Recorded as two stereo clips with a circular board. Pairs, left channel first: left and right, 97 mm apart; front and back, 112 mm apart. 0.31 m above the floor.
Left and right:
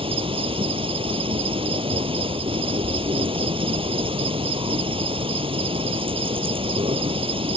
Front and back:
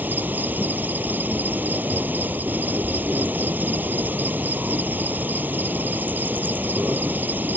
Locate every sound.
0.0 s an insect: 105° right